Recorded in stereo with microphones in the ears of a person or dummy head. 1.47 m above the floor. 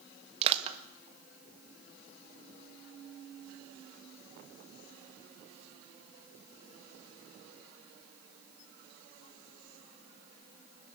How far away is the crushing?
About 1.6 m.